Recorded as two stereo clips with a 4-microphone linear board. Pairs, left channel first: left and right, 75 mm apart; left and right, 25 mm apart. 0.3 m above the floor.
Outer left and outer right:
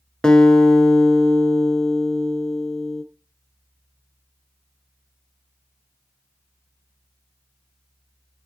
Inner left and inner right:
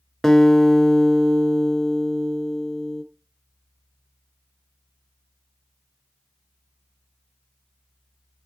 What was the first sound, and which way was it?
A guitar, 10° left (ahead or behind).